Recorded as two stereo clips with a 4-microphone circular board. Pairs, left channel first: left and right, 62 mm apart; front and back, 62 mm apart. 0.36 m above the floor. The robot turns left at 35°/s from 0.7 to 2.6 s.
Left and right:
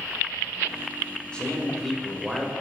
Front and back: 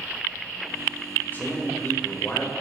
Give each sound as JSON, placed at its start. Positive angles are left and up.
{"t": 1.3, "sound": "a man speaking", "azimuth_deg": 30, "distance_m": 1.3}